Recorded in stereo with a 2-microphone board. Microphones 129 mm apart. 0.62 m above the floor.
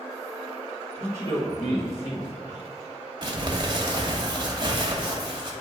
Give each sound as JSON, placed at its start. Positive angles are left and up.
{"t": 1.0, "sound": "a man speaking", "side_deg": 40, "distance_m": 1.8}
{"t": 3.2, "sound": "crumpling", "side_deg": -40, "distance_m": 1.0}